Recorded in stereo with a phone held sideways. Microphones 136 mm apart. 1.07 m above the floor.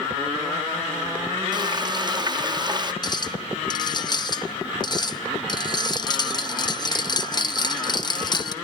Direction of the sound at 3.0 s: 35° left (ahead or behind).